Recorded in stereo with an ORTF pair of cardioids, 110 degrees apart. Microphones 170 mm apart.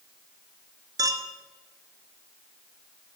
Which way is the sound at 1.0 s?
20° right.